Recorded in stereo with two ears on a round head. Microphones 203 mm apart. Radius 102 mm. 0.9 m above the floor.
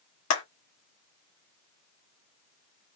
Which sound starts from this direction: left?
A clap, at 0.3 s.